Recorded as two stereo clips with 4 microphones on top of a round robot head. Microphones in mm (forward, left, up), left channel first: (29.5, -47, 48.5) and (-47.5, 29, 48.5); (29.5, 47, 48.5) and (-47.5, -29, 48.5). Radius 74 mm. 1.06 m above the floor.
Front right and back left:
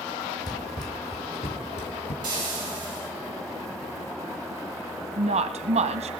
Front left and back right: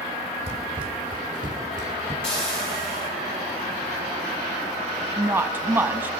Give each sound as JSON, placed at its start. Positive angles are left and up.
{"t": 0.5, "sound": "running footsteps", "azimuth_deg": -95, "distance_m": 2.0}
{"t": 2.2, "sound": "frying", "azimuth_deg": 80, "distance_m": 6.0}
{"t": 5.2, "sound": "a woman speaking", "azimuth_deg": 150, "distance_m": 1.0}